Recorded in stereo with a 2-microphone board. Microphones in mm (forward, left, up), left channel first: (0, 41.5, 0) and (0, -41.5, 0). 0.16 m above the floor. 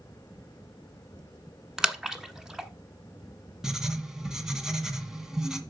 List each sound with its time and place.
1.8 s a splash: 5° right (ahead or behind), 1.0 m
3.6 s writing: 5° right (ahead or behind), 1.5 m